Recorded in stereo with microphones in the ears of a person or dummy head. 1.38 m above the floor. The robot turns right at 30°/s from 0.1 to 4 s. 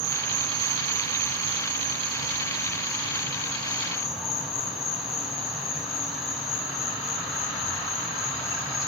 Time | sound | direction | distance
0.0 | an insect | 125° right | 3 m